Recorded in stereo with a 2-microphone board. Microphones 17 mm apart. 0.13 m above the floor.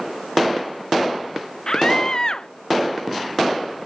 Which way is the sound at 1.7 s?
40° left (ahead or behind).